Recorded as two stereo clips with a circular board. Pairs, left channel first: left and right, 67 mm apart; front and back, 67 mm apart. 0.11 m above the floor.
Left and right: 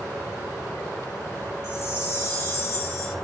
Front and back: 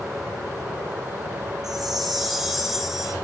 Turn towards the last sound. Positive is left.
turn(degrees=100)